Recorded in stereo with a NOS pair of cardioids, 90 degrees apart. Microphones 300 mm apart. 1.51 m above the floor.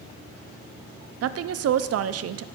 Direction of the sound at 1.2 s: 55° right.